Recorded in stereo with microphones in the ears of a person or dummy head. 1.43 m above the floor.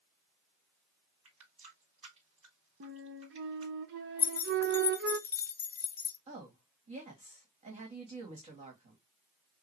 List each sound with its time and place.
1.2 s a running tap: 45° right (ahead or behind), 2.5 m
2.8 s a flute: 65° right (ahead or behind), 0.8 m
4.2 s keys jangling: 20° left (ahead or behind), 0.5 m
6.3 s a woman speaking: 30° right (ahead or behind), 2.5 m